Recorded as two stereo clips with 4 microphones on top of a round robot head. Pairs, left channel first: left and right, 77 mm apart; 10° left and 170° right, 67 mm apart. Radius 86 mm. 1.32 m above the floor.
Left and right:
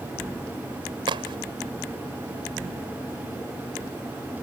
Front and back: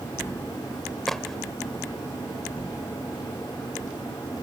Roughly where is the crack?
Right.